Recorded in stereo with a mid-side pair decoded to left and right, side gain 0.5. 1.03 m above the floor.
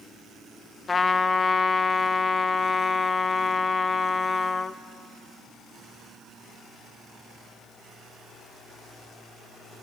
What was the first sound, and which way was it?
A trumpet, 30° left.